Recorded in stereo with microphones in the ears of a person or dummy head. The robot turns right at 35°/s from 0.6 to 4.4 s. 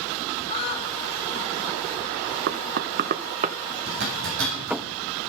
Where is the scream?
30° left (ahead or behind), 6 m; by 0.9 s 20° left (ahead or behind), 6 m.